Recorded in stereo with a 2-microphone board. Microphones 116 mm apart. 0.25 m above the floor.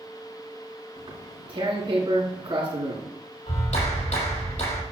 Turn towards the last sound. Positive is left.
turn(degrees=80)